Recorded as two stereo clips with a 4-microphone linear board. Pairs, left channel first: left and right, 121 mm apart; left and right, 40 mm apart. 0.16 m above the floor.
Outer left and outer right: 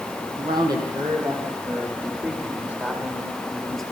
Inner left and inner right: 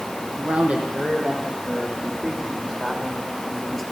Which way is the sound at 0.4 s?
40° right (ahead or behind).